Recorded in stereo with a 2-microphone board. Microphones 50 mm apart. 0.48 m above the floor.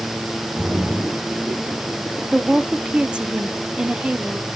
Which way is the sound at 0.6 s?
15° right (ahead or behind).